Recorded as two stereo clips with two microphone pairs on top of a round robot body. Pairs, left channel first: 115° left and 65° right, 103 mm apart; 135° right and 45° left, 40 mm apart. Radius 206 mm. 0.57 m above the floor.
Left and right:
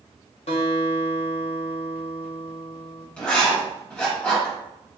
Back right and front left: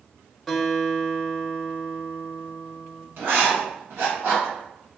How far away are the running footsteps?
No running footsteps in this recording.